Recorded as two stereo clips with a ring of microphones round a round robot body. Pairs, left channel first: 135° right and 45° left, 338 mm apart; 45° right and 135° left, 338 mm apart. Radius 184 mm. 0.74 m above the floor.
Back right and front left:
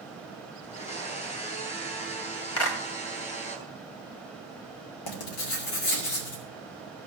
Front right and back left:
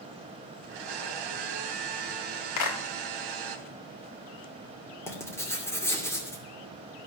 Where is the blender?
155° left, 3 m.